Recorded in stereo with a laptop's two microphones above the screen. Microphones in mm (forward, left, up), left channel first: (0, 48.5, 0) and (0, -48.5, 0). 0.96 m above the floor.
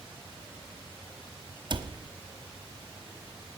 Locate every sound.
1.7 s a cupboard door: 50° right (ahead or behind), 0.9 m